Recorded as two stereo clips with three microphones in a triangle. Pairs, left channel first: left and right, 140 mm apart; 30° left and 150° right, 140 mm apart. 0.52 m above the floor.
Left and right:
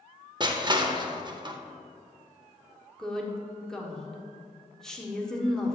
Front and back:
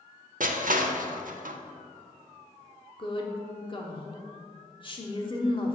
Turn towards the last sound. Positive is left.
turn(degrees=5)